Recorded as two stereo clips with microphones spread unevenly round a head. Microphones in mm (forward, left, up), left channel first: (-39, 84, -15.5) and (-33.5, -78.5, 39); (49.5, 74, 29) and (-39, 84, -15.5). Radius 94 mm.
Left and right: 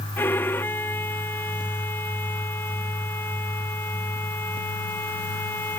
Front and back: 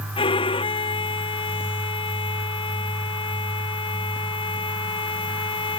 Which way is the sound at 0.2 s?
10° left.